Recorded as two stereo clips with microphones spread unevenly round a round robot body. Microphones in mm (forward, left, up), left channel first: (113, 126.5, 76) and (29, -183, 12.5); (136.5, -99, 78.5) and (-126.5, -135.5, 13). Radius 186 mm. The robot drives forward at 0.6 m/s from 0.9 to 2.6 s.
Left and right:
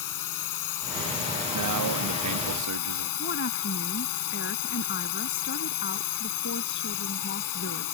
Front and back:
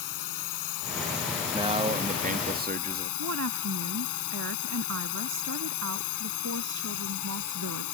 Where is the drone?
45° left; by 8.0 s 50° left.